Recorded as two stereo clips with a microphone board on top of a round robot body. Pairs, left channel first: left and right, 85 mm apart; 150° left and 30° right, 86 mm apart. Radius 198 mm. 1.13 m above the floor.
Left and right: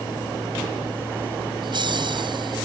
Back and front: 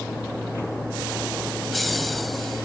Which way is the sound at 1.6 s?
120° right.